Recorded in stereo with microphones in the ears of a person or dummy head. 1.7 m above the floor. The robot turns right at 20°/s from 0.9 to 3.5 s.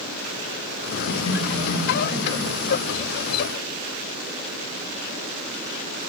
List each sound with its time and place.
1.1 s laughter: 45° left (ahead or behind), 3 m; by 2.7 s 15° left (ahead or behind), 3 m